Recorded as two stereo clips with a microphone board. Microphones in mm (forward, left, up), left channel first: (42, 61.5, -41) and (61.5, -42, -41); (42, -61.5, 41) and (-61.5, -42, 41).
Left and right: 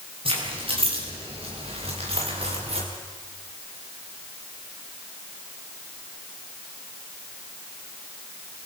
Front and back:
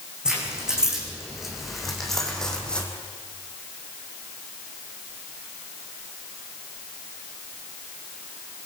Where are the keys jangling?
110° right, 6.5 m; by 2.9 s 90° right, 4.5 m.